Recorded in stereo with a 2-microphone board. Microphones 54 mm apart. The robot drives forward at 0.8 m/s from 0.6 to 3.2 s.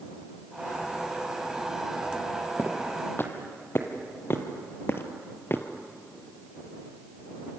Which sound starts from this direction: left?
Footsteps, at 2.6 s.